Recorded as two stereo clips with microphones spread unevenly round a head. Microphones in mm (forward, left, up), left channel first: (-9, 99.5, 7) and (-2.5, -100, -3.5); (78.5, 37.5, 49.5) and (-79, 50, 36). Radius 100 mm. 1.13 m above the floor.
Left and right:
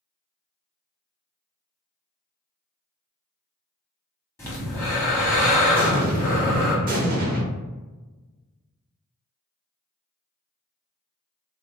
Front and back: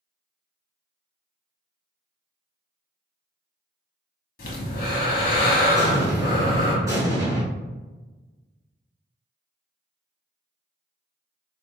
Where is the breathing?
15° left, 0.9 m.